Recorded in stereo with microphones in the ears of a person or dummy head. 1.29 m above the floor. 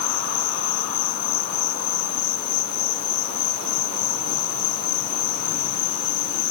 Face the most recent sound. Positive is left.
turn(degrees=65)  # may be behind; listen again after turning